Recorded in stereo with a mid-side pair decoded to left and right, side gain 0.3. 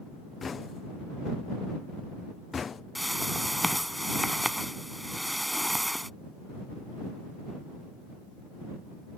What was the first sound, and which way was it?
Knocking, 60° left.